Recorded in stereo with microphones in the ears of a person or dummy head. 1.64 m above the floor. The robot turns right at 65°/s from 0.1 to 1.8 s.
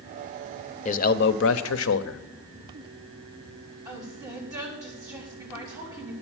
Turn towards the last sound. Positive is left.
turn(degrees=-15)  # may be behind; listen again after turning